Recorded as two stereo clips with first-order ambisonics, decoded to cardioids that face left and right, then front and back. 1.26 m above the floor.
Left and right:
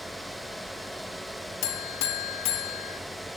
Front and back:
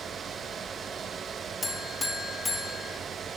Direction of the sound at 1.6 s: 80° left.